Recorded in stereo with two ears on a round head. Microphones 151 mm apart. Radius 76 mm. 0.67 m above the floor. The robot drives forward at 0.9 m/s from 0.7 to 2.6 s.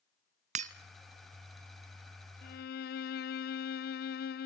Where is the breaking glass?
45° right (ahead or behind), 1.0 m.